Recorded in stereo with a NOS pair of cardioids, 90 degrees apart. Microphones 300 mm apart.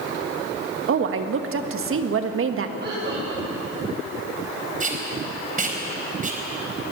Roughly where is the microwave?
I don't hear a microwave.